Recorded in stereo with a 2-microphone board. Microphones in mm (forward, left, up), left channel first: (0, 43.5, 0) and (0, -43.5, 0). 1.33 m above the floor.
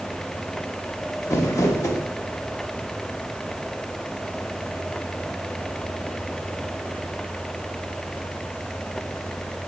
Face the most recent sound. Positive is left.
turn(degrees=40)  # may be behind; listen again after turning